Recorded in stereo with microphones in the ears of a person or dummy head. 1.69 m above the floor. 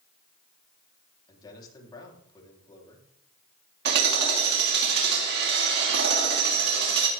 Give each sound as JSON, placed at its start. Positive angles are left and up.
{"t": 1.3, "sound": "a man speaking", "side_deg": 25, "distance_m": 4.5}
{"t": 3.9, "sound": "hammering", "side_deg": -65, "distance_m": 3.5}